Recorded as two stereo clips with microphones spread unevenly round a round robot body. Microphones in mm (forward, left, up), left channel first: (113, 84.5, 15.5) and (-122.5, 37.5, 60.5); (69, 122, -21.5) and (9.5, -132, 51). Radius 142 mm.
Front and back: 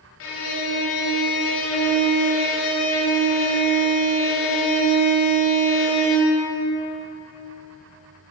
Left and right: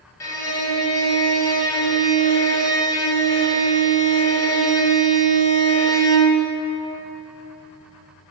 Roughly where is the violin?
Ahead.